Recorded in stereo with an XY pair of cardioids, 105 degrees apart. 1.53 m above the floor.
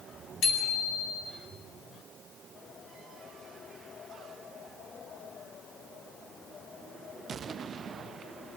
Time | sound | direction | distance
0.4 | a bicycle bell | 60° left | 9 m